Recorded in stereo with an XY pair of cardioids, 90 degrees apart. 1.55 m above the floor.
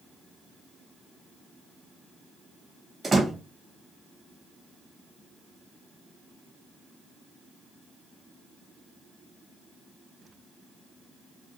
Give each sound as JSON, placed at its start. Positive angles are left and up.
{"t": 3.0, "sound": "a door slam", "azimuth_deg": -35, "distance_m": 1.6}